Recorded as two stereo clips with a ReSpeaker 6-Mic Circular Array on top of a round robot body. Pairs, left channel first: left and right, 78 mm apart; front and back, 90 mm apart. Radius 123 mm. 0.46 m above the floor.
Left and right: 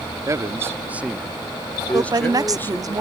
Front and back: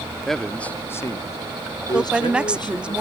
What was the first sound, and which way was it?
A man speaking, 90° right.